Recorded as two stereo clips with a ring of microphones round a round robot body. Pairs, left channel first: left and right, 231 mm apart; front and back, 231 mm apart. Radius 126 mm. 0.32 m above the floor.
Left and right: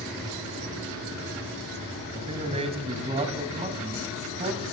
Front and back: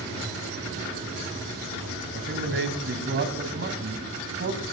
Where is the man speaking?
150° right, 2.5 m.